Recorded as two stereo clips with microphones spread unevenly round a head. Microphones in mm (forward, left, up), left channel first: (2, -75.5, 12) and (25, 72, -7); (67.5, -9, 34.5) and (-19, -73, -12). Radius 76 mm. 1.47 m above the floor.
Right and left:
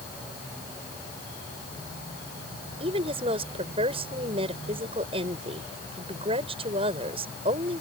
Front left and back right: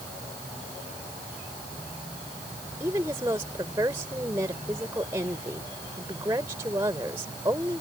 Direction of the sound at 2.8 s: 140° left.